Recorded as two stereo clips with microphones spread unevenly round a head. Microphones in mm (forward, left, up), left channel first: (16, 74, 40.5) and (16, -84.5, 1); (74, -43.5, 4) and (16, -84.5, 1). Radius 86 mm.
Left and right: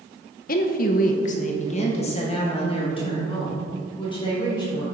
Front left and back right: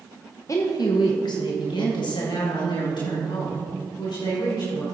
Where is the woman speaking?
90° left, 0.9 m; by 4.8 s 30° left, 4 m.